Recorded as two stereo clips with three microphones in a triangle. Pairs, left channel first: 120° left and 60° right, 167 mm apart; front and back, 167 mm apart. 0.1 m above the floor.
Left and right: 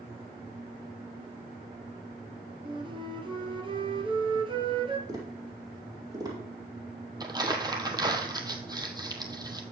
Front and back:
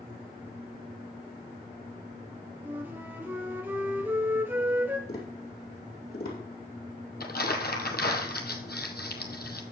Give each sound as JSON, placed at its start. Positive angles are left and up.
{"t": 2.6, "sound": "a flute", "azimuth_deg": -105, "distance_m": 1.4}
{"t": 5.1, "sound": "tapping", "azimuth_deg": 5, "distance_m": 4.5}
{"t": 7.2, "sound": "crumpling", "azimuth_deg": 5, "distance_m": 1.3}